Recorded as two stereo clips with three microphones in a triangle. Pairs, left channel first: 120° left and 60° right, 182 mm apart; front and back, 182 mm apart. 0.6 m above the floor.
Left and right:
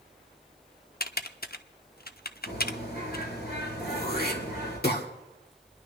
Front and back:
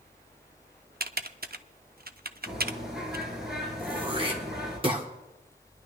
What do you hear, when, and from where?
1.0 s typing on a keyboard: 150° left, 0.6 m
2.5 s a bird: 90° left, 4.5 m
3.8 s throat clearing: 125° left, 1.7 m